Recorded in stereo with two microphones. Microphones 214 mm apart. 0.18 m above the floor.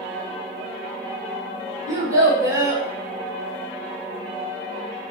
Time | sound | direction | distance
1.9 | a child speaking | 15° right (ahead or behind) | 0.8 m